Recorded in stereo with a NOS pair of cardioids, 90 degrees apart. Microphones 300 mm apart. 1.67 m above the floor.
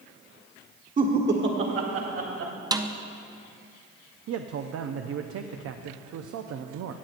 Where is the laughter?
30° right, 1.4 m; by 2.5 s 60° right, 2.5 m.